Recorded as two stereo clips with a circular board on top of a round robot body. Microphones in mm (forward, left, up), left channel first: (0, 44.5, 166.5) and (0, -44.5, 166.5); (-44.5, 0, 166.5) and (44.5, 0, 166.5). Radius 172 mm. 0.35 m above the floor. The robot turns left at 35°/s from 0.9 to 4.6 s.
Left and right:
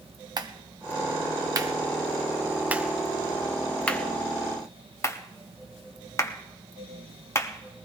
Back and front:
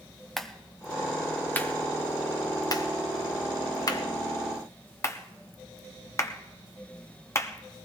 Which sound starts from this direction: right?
A clap, at 0.4 s.